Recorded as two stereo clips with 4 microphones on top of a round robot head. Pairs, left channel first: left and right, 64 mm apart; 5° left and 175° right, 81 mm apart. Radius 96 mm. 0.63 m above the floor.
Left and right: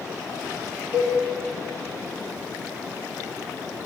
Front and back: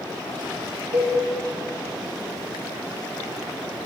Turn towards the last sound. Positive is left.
turn(degrees=-140)